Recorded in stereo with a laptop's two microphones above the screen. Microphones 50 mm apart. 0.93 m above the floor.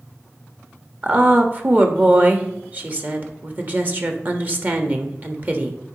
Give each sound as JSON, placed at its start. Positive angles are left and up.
{"t": 1.0, "sound": "a woman speaking", "side_deg": -35, "distance_m": 1.3}